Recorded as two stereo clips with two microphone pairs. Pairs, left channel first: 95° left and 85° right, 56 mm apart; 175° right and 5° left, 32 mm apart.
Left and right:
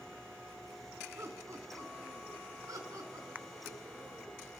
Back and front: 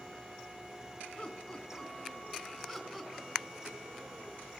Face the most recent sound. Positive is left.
turn(degrees=-70)